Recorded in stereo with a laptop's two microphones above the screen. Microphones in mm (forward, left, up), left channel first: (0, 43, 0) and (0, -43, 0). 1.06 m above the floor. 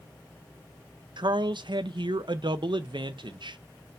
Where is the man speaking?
65° right (ahead or behind), 0.5 m.